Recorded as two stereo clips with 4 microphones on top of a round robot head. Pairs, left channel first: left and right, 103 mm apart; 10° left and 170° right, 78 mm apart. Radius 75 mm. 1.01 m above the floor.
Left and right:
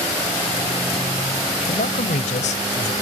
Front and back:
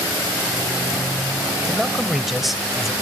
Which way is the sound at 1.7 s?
100° left.